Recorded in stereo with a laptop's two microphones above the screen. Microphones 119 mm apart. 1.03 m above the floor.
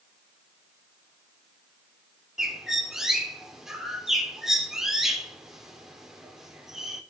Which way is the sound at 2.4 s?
5° right (ahead or behind).